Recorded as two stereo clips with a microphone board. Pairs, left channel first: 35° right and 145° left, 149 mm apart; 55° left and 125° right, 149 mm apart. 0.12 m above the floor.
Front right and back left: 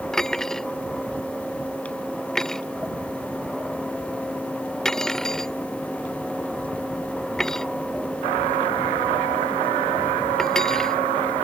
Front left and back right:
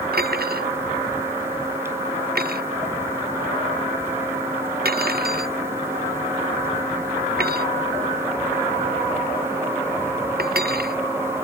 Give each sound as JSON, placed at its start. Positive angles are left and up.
{"t": 0.1, "sound": "cutlery clinking", "azimuth_deg": -120}